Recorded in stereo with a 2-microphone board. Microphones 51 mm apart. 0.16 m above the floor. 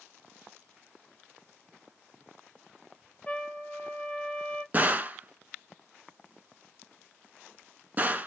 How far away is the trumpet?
About 1.1 m.